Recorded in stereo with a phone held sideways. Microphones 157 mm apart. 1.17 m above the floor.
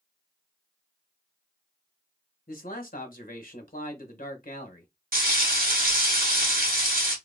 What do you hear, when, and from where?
2.5 s a man speaking: 65° left (ahead or behind), 1.2 m
5.1 s frying: 65° right (ahead or behind), 1.5 m